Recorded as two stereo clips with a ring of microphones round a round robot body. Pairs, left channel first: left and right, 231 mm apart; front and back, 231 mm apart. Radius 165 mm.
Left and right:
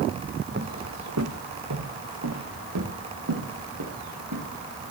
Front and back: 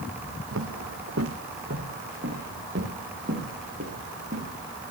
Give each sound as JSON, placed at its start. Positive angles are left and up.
{"t": 0.5, "sound": "footsteps", "azimuth_deg": -145, "distance_m": 0.8}